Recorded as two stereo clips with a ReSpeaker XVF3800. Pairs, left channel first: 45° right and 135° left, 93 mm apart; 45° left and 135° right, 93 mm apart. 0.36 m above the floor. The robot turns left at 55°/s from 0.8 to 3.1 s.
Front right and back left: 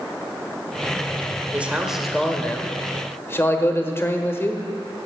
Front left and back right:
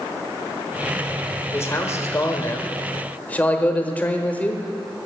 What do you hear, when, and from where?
1.5 s a man speaking: 75° left, 1.1 m; by 4.6 s 10° right, 1.1 m